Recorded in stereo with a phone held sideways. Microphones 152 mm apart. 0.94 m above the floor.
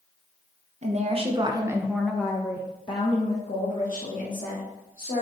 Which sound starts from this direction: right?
A woman speaking, at 0.8 s.